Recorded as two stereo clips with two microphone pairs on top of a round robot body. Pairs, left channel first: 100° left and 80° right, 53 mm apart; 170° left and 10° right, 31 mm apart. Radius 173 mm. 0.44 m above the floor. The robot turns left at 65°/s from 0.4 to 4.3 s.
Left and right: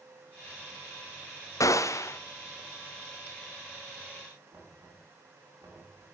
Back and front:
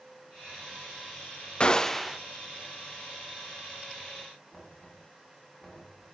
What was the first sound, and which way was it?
A gunshot, 105° left.